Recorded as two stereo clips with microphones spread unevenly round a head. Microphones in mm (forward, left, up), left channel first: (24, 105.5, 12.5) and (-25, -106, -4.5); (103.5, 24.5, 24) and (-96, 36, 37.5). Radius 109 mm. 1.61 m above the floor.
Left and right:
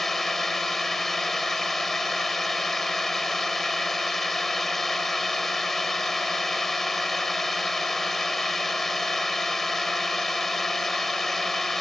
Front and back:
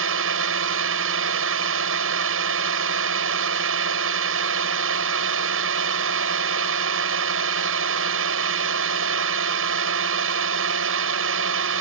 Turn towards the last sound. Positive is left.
turn(degrees=165)